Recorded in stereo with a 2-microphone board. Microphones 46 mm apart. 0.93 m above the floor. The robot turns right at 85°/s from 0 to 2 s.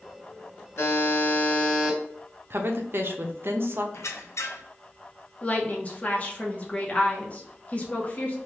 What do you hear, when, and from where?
0.8 s a buzzer: 90° left, 1.7 m; by 2.0 s 165° right, 1.7 m
2.5 s a woman speaking: 50° right (ahead or behind), 0.7 m
3.9 s a squeak: 80° left, 0.6 m
5.4 s a woman speaking: 35° left (ahead or behind), 1.0 m